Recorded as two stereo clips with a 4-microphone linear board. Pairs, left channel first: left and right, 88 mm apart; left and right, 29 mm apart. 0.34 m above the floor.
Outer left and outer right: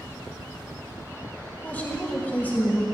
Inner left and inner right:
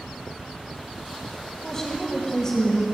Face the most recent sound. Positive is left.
turn(degrees=20)  # may be behind; listen again after turning